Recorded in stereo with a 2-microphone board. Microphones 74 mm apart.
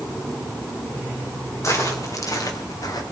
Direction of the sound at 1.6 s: 45° left (ahead or behind).